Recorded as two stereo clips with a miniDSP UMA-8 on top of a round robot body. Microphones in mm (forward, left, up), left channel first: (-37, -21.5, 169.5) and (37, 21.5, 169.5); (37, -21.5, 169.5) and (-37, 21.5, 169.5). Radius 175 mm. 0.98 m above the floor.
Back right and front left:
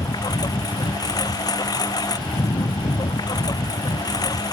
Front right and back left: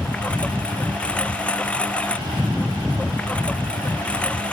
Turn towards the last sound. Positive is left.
turn(degrees=-105)